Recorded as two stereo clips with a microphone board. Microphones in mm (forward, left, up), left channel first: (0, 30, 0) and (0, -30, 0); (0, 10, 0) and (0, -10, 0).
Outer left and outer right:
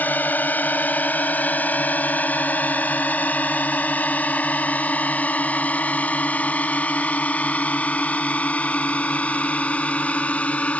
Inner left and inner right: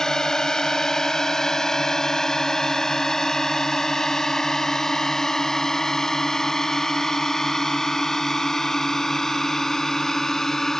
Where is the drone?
30° left (ahead or behind); by 10.8 s 20° left (ahead or behind).